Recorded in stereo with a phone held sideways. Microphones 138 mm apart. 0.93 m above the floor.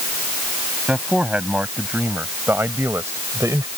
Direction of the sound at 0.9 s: 5° right (ahead or behind).